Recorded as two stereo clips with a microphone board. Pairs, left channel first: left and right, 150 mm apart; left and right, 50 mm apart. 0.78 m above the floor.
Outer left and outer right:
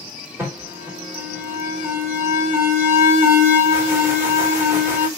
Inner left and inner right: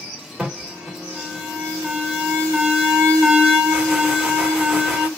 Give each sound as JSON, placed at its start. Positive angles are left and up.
{"t": 0.4, "sound": "an alarm", "side_deg": -15, "distance_m": 2.5}